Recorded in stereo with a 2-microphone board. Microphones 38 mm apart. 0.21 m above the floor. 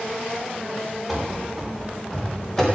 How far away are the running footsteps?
About 3.5 m.